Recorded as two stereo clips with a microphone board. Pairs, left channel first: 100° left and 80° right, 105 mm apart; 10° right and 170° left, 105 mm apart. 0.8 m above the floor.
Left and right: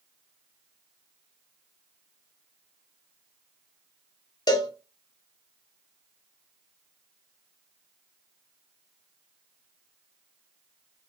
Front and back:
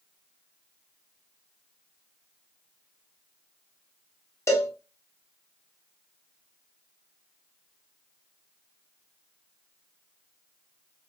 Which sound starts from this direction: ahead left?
A cowbell, at 4.5 s.